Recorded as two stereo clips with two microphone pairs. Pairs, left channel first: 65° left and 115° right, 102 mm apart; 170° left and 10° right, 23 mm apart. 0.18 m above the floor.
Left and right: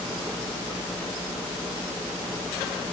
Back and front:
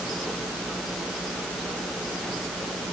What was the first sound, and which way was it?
Only background noise.